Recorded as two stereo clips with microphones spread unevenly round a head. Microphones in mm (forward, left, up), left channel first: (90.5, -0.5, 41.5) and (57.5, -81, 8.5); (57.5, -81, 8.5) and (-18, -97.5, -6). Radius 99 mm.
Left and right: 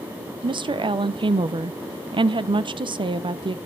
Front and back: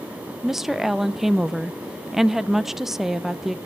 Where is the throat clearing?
I don't hear throat clearing.